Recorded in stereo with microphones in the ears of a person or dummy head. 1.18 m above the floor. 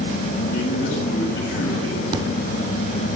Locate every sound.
0.5 s a man speaking: 80° left, 7 m
2.1 s an explosion: 30° right (ahead or behind), 3 m